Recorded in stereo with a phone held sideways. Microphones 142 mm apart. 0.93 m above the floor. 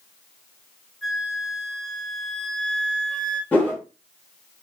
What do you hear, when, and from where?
1.0 s a flute: centre (ahead or behind), 0.7 m
3.5 s a whoosh: 10° left (ahead or behind), 1.1 m